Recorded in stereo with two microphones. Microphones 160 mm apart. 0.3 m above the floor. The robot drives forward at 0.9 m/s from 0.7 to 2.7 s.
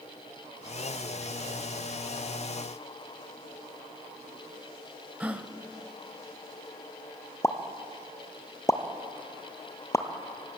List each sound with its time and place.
5.2 s a gasp: 10° right (ahead or behind), 1.2 m
7.4 s a pop: 20° left (ahead or behind), 1.3 m